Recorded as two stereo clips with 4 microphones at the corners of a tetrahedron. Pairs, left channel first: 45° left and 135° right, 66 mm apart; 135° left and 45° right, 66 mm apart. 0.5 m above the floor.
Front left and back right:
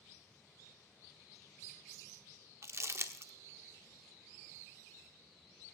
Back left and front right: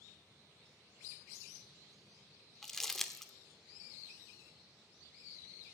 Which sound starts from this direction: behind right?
Crumpling, at 2.6 s.